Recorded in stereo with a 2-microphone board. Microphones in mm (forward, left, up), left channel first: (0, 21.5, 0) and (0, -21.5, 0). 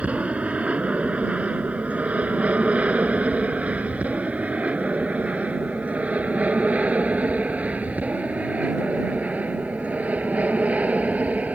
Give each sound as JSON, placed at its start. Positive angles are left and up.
{"t": 0.0, "sound": "an aircraft", "side_deg": -30}